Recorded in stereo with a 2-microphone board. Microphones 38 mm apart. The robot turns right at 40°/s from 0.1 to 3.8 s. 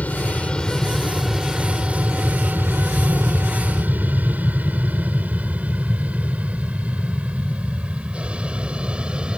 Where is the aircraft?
45° left (ahead or behind); by 9.4 s 30° right (ahead or behind).